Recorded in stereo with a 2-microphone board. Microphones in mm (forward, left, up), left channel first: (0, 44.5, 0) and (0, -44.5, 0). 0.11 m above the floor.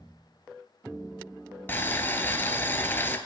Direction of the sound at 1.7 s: 25° left (ahead or behind).